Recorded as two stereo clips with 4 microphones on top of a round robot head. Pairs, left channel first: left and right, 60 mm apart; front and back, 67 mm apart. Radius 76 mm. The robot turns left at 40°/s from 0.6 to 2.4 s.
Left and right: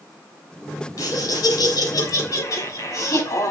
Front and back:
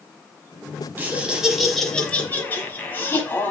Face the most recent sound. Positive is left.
turn(degrees=60)